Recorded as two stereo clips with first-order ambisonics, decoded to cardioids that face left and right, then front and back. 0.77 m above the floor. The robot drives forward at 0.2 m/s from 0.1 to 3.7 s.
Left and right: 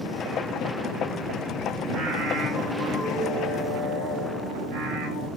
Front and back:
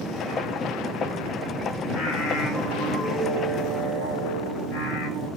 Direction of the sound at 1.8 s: 65° right.